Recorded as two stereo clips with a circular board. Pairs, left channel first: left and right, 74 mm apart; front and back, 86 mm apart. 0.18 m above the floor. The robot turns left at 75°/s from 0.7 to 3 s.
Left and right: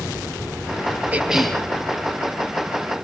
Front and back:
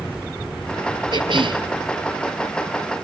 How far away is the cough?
About 3.5 m.